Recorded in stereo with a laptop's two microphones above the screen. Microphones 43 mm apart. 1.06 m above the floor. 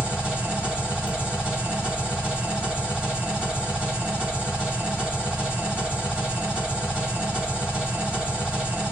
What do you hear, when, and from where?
0.0 s an engine running: 25° right (ahead or behind), 1.2 m